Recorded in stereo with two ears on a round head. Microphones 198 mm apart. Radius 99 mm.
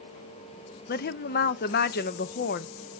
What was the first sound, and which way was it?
A woman speaking, 45° left (ahead or behind).